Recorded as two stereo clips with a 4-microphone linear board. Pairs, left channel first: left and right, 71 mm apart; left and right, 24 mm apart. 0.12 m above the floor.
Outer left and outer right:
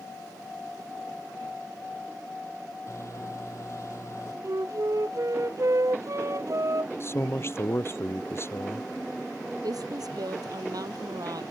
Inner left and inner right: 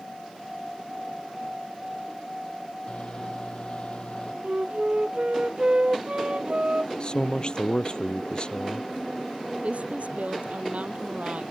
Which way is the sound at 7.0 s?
35° left (ahead or behind).